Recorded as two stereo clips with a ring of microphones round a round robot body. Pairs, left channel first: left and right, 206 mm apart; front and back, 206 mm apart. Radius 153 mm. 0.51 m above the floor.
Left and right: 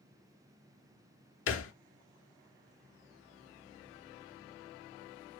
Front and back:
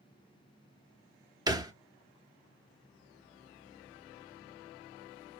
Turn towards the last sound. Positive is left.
turn(degrees=110)